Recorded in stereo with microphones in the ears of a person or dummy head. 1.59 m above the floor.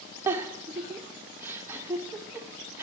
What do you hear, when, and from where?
0.3 s a giggle: 10° right (ahead or behind), 0.7 m